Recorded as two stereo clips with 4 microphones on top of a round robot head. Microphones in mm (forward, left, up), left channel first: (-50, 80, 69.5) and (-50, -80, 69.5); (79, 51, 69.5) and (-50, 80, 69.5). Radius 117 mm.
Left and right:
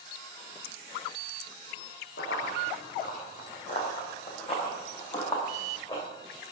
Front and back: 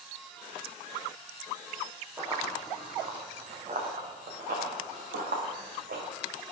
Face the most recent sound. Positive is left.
turn(degrees=155)